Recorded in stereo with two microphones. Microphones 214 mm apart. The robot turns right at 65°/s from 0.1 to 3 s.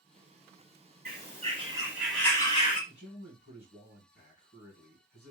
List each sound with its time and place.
1.1 s a bird: 65° right, 1.5 m; by 2.8 s 45° left, 1.5 m
2.9 s a man speaking: 50° left (ahead or behind), 2.5 m